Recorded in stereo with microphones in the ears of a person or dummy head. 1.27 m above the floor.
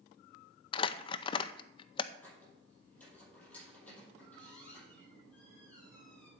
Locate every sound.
0.7 s crumpling: 30° left (ahead or behind), 0.6 m
2.2 s a squeak: 5° left (ahead or behind), 7 m